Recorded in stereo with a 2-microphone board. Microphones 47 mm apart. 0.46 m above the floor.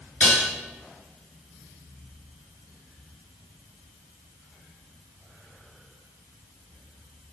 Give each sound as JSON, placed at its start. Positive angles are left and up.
{"t": 0.2, "sound": "dishes clattering", "side_deg": 35, "distance_m": 4.5}